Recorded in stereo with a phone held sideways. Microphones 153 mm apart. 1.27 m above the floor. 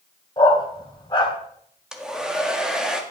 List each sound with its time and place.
0.4 s a dog barking: 30° left (ahead or behind), 2.5 m
1.9 s a hair dryer: 5° right (ahead or behind), 1.7 m